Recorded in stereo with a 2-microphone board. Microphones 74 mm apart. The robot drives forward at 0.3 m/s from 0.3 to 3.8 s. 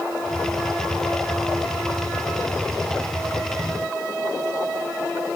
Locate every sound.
Only background noise.